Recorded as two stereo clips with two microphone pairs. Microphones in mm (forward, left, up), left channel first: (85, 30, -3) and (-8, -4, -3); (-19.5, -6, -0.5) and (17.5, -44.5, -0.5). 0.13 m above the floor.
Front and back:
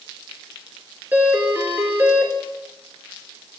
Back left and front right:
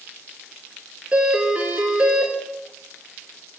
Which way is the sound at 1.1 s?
100° right.